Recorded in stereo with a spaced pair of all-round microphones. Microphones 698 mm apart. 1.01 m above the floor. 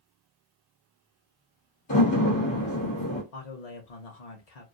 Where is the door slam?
40° left (ahead or behind), 1.2 m.